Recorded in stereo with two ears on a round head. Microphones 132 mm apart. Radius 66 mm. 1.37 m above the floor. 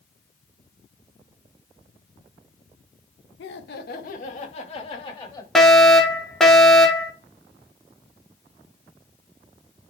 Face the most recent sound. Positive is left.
turn(degrees=5)  # may be behind; listen again after turning